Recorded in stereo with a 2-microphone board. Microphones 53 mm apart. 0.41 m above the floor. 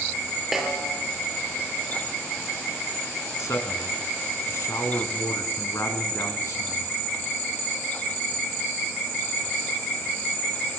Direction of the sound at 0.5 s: 5° right (ahead or behind).